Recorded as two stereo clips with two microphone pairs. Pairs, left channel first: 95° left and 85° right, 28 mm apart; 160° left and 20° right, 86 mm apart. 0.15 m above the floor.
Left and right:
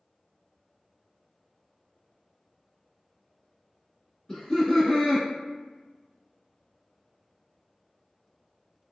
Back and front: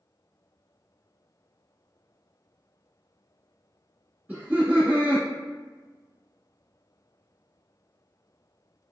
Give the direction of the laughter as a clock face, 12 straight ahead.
11 o'clock.